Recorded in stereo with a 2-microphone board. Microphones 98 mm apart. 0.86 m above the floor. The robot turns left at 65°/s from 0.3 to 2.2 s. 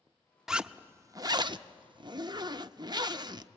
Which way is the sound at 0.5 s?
5° right.